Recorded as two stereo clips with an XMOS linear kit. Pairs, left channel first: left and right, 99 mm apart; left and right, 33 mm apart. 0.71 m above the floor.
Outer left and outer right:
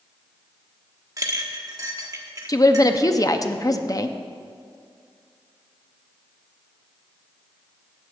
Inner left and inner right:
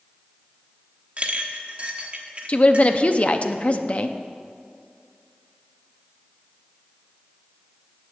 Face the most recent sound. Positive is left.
turn(degrees=35)  # may be behind; listen again after turning